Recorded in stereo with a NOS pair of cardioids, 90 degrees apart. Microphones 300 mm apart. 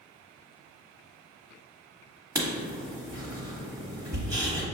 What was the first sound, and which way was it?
Writing, 10° right.